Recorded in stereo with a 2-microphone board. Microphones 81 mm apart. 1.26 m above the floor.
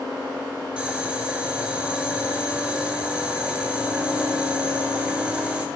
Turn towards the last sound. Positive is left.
turn(degrees=-15)  # may be behind; listen again after turning